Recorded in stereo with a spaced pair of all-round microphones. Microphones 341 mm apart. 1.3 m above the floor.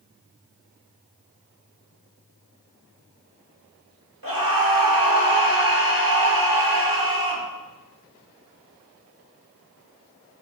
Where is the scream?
85° right, 2 m.